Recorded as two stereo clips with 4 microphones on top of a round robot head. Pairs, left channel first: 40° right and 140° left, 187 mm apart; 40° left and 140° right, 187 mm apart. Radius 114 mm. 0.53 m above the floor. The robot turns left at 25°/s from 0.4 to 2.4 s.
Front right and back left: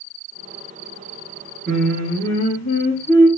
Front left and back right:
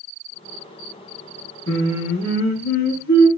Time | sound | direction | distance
1.7 | singing | 50° left | 0.7 m